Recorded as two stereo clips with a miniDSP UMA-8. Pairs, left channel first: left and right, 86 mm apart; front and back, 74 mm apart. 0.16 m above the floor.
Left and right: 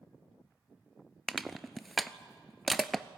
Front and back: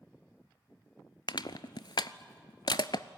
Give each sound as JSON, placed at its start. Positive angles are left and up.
{"t": 1.3, "sound": "crushing", "azimuth_deg": 0, "distance_m": 0.6}